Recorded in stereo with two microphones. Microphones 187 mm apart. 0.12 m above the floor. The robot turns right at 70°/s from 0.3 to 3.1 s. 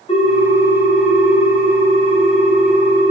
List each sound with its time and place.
0.1 s a ringtone: 120° left, 0.6 m; by 3.1 s 45° right, 0.6 m